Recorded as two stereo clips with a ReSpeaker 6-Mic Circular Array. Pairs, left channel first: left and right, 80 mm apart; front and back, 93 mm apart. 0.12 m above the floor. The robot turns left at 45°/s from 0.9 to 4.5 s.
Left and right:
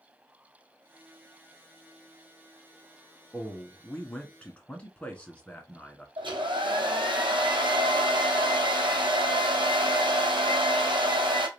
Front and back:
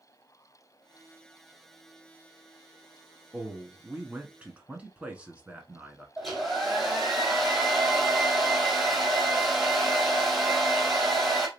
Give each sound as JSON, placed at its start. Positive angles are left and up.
{"t": 3.3, "sound": "a man speaking", "azimuth_deg": -175, "distance_m": 1.0}
{"t": 6.2, "sound": "a hair dryer", "azimuth_deg": -90, "distance_m": 1.5}